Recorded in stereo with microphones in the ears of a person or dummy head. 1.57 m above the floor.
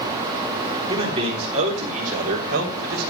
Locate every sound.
0.9 s a man speaking: 30° right (ahead or behind), 3.5 m; by 3.1 s 55° right (ahead or behind), 4 m